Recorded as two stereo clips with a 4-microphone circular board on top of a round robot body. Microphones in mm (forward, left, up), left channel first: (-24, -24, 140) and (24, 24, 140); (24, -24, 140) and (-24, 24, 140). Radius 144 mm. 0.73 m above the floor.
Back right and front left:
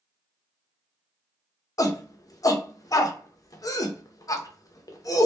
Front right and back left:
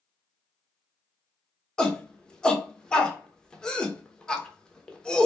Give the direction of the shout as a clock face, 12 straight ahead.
4 o'clock.